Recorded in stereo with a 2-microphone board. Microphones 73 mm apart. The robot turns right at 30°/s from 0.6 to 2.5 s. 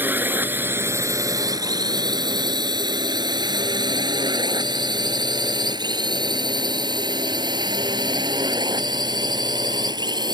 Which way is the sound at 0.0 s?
25° right (ahead or behind).